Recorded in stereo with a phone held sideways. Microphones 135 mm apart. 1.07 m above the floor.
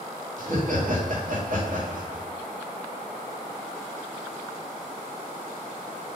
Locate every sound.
0.4 s laughter: 65° right (ahead or behind), 1.7 m